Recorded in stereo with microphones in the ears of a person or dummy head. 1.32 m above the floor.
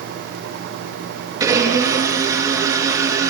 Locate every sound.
1.4 s a blender: 15° right (ahead or behind), 7 m